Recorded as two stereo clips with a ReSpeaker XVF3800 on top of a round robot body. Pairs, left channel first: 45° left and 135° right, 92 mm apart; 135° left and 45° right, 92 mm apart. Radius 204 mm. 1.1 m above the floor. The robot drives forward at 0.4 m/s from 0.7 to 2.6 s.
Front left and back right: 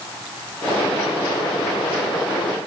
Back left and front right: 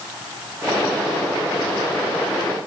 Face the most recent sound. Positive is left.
No sound to turn to.